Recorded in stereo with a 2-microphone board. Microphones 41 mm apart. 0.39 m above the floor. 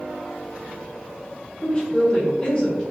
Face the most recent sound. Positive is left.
turn(degrees=30)  # may be behind; listen again after turning